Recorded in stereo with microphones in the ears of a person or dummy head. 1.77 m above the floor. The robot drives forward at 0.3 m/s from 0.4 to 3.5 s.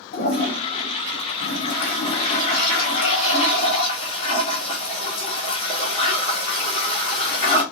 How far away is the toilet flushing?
About 1.4 m.